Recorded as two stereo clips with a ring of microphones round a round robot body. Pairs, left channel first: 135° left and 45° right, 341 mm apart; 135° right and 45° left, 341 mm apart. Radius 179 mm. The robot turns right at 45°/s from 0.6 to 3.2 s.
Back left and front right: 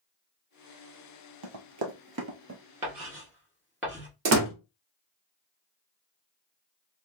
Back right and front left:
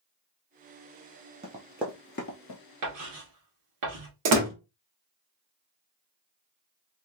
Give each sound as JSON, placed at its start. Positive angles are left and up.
{"t": 1.4, "sound": "running footsteps", "azimuth_deg": -25, "distance_m": 1.0}
{"t": 2.8, "sound": "writing", "azimuth_deg": 25, "distance_m": 1.8}
{"t": 4.2, "sound": "a door slam", "azimuth_deg": 5, "distance_m": 1.0}